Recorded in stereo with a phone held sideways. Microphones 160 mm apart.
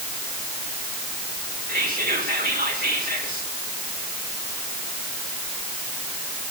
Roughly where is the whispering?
Right.